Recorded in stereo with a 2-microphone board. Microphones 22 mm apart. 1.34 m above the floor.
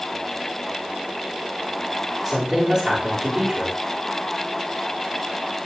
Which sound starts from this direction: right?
A woman speaking, at 2.2 s.